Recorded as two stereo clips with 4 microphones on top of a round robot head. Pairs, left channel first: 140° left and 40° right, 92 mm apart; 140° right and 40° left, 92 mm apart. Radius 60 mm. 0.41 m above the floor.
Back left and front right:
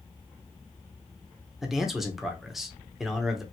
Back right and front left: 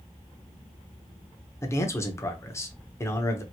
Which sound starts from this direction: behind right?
A man speaking, at 1.6 s.